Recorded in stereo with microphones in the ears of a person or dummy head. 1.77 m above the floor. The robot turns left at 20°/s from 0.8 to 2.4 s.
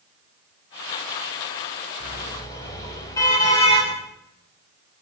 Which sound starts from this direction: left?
A car horn, at 2.0 s.